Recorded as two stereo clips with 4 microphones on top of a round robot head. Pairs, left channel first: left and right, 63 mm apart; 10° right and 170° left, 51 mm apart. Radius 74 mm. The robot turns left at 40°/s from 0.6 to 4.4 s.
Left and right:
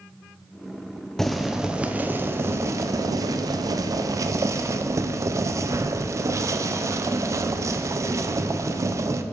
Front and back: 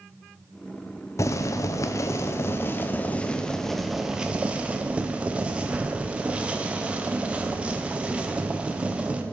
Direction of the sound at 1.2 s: 5° left.